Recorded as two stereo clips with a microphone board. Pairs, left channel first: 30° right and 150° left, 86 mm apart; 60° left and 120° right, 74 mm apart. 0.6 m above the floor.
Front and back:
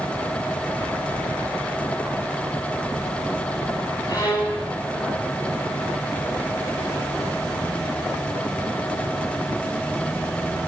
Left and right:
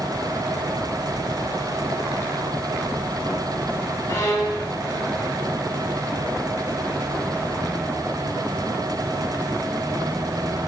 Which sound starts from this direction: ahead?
A violin, at 4.1 s.